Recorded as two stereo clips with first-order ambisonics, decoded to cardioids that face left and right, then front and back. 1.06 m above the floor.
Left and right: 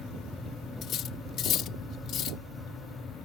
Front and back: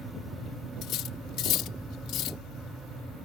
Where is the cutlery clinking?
40° left.